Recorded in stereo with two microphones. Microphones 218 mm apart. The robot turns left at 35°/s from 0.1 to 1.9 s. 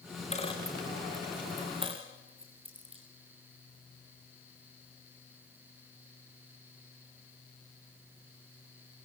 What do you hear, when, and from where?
0.3 s a dropped coin: 30° left (ahead or behind), 5.5 m; by 3.0 s 25° right (ahead or behind), 5.5 m